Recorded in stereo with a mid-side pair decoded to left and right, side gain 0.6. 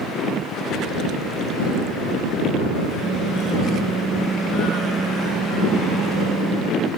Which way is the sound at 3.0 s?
30° right.